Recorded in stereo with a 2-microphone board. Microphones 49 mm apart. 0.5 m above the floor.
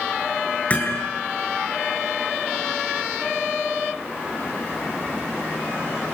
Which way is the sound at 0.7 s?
30° left (ahead or behind).